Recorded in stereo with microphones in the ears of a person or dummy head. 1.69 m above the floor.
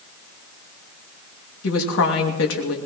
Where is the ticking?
No ticking in this recording.